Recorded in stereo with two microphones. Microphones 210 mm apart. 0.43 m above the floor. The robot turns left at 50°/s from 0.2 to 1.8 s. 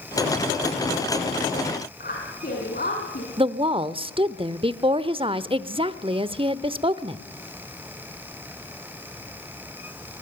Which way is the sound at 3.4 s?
25° right (ahead or behind).